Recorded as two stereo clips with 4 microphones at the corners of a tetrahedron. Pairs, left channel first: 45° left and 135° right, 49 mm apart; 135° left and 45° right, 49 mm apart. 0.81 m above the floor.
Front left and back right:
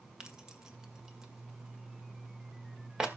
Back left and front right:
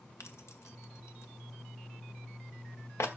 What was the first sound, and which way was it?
Keys jangling, 145° left.